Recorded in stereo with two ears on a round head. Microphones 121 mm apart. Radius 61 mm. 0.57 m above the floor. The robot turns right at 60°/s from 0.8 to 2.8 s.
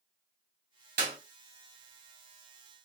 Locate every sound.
1.0 s a clap: 70° right (ahead or behind), 2 m; by 1.2 s 80° right, 2 m